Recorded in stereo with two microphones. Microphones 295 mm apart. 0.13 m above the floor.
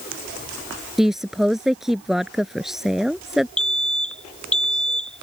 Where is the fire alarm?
5° left (ahead or behind).